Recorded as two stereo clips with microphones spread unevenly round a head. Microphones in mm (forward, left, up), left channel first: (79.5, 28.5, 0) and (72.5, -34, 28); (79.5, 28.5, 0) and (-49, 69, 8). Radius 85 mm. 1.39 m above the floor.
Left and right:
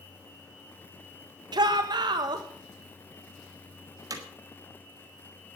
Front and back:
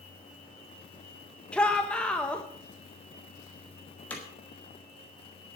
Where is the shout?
100° right, 1.4 m.